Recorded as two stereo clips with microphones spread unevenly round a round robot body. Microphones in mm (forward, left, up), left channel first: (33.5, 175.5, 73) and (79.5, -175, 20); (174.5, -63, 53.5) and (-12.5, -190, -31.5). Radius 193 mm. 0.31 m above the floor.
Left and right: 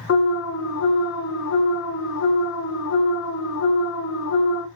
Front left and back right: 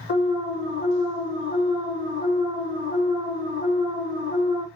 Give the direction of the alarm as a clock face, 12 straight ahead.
9 o'clock.